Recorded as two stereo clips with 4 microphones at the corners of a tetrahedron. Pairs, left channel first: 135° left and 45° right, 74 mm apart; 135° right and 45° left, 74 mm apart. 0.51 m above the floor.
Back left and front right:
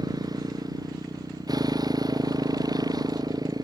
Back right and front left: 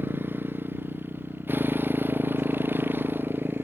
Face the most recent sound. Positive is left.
turn(degrees=-15)